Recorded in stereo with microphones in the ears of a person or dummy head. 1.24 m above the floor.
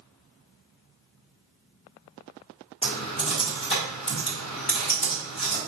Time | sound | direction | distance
2.8 | typing on a keyboard | 30° left (ahead or behind) | 1.4 m